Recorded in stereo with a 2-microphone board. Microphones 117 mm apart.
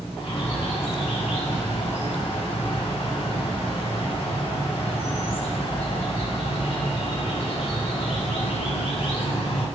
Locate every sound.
0.2 s a bird: 50° left (ahead or behind), 1.4 m